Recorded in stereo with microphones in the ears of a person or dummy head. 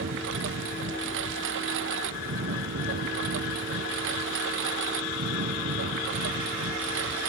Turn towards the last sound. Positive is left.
turn(degrees=-65)  # may be behind; listen again after turning